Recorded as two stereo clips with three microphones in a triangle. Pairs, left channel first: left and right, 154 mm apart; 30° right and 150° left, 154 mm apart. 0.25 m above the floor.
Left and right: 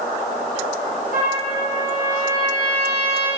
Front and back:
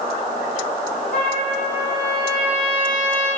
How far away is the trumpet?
About 3.5 m.